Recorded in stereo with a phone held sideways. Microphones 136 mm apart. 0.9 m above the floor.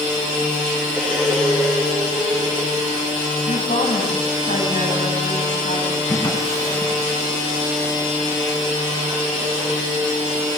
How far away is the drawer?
About 4 m.